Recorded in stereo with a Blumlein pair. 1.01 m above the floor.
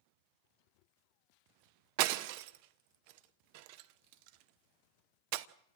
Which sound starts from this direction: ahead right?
Breaking glass, at 2.0 s.